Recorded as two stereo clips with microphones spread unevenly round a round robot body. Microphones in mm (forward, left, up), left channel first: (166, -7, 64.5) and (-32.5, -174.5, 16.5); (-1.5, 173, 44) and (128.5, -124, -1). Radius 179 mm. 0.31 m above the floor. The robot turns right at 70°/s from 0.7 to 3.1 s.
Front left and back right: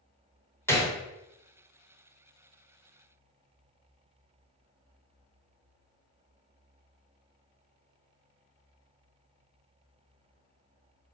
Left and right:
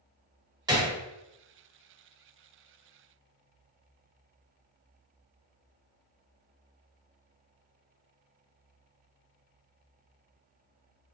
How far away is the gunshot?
About 1.0 m.